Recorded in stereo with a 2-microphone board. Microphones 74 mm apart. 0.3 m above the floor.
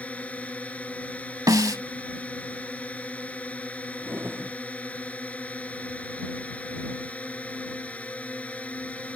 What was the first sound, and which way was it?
A drone, 20° left (ahead or behind).